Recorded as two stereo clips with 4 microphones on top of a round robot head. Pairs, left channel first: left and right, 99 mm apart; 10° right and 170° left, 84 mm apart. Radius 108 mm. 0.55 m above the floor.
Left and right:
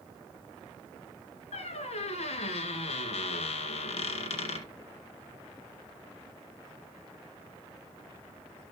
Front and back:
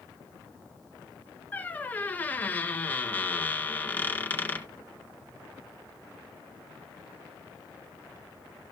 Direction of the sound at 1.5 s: 60° left.